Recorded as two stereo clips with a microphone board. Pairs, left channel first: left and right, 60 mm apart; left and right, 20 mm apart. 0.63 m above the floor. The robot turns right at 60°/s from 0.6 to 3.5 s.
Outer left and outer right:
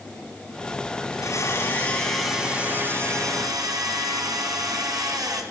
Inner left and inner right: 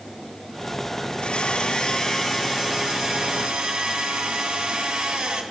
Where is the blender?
115° left, 3.5 m; by 5.4 s 105° right, 3.5 m.